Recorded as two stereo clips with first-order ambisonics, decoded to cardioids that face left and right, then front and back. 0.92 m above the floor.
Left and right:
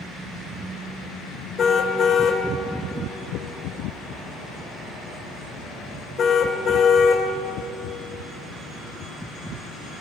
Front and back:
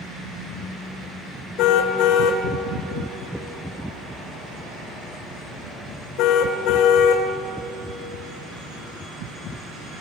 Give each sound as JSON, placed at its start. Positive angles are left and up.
{"t": 1.6, "sound": "a car horn", "azimuth_deg": 25, "distance_m": 2.0}